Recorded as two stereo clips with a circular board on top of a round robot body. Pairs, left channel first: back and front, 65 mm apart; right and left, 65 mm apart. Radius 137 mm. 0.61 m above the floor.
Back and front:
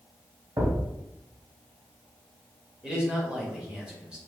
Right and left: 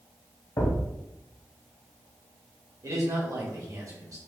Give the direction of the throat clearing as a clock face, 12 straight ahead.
No throat clearing in this recording.